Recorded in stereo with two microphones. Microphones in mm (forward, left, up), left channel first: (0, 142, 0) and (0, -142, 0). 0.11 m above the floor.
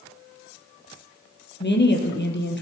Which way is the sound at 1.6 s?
40° left (ahead or behind).